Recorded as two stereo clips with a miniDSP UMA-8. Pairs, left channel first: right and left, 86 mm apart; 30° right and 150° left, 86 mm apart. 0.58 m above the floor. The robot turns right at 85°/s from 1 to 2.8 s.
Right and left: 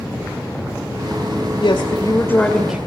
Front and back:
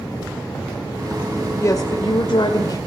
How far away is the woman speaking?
About 1.9 m.